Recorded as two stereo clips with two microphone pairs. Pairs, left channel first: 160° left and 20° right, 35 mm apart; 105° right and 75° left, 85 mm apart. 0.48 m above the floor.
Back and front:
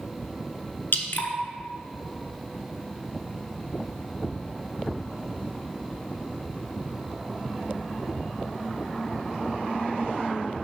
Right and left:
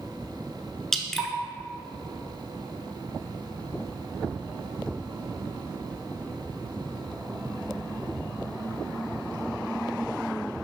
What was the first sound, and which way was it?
Dripping, 170° left.